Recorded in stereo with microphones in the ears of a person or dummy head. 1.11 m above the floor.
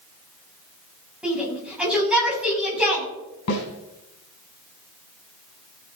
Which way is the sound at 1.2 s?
5° right (ahead or behind).